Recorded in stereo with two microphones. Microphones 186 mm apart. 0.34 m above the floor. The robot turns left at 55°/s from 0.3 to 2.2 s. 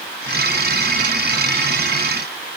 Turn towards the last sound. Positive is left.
No sound to turn to.